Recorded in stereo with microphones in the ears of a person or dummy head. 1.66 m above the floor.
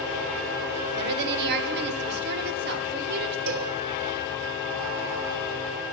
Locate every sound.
1.0 s a woman speaking: 55° right (ahead or behind), 1.4 m
3.5 s a cowbell: 70° right (ahead or behind), 1.2 m